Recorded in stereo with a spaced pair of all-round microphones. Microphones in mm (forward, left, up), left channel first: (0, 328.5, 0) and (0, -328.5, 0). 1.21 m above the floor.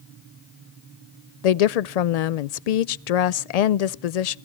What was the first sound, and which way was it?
A woman speaking, 80° left.